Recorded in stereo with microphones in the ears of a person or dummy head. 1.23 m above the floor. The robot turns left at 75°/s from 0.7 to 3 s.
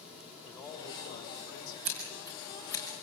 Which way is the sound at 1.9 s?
50° right (ahead or behind).